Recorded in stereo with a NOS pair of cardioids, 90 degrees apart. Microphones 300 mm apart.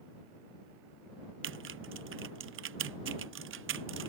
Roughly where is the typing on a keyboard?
Ahead right.